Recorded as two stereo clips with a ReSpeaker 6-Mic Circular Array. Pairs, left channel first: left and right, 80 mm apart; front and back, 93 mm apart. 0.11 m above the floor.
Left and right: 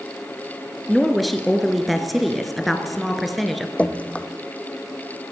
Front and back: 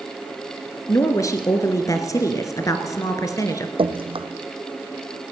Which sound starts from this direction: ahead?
A woman speaking, at 0.9 s.